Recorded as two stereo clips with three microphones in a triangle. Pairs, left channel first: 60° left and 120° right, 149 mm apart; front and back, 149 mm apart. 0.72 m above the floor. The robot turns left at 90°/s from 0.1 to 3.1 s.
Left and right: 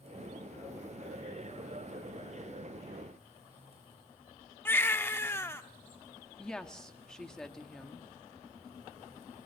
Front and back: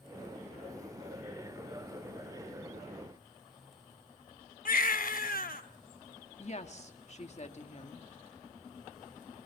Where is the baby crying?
15° right, 1.0 m.